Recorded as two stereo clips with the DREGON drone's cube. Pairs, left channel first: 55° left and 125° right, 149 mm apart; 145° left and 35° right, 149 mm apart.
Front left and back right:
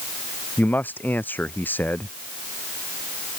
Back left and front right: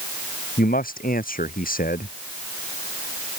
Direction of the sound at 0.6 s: 135° left.